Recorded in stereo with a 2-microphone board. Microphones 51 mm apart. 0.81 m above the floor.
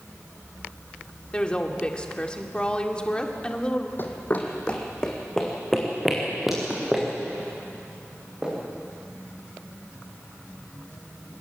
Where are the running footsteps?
45° left (ahead or behind), 2 m; by 8.5 s 15° right (ahead or behind), 8 m.